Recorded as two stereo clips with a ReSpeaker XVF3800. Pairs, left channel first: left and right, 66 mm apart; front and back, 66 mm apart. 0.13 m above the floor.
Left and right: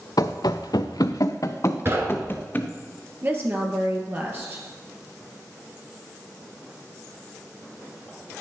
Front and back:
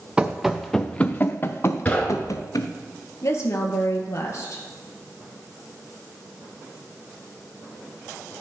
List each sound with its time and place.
0.2 s running footsteps: 105° left, 0.8 m; by 2.7 s 30° left, 1.5 m
1.9 s knocking: 60° right, 1.4 m
3.2 s a woman speaking: 35° right, 2 m